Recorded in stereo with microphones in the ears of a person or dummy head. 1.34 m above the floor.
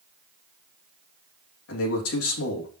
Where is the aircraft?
I don't hear an aircraft.